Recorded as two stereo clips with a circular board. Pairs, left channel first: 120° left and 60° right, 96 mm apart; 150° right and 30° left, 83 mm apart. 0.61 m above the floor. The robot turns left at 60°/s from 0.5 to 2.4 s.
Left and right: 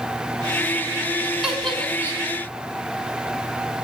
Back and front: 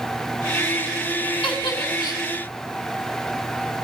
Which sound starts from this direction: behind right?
A giggle, at 1.4 s.